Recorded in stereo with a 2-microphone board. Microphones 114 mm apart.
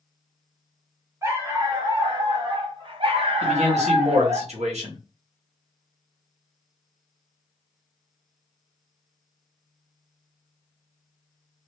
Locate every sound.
1.2 s a dog barking: 25° right (ahead or behind), 1.3 m; by 4.4 s 45° right (ahead or behind), 1.6 m
3.4 s a man speaking: 75° right (ahead or behind), 1.5 m